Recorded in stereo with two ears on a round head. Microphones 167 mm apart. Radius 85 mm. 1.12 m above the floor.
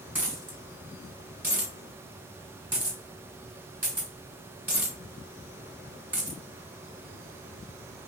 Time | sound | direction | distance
0.1 | a dropped coin | 10° right (ahead or behind) | 1.9 m